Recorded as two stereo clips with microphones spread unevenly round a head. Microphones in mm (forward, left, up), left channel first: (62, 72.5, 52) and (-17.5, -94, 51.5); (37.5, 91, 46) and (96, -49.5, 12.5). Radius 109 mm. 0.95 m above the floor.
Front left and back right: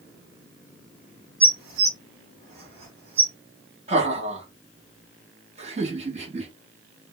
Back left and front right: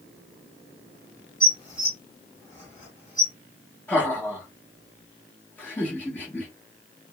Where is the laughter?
160° right, 1.3 m.